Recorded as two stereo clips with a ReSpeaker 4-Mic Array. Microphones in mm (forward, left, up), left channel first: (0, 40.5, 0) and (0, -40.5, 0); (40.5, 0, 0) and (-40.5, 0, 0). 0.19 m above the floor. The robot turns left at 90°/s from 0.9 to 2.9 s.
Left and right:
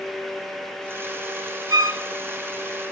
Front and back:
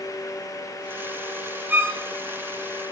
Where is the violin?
110° right, 1.2 m; by 2.0 s 135° right, 1.2 m.